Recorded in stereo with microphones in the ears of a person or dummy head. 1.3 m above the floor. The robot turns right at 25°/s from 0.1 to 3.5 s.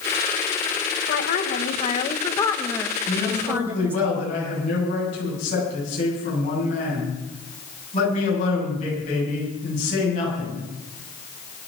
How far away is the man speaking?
About 10 m.